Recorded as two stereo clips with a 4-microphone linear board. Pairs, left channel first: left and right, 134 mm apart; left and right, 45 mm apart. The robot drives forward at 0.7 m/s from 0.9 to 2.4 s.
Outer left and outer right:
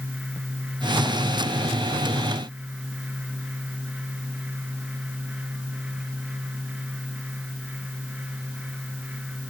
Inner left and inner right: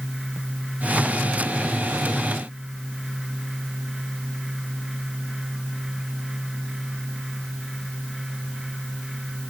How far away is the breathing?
I don't hear breathing.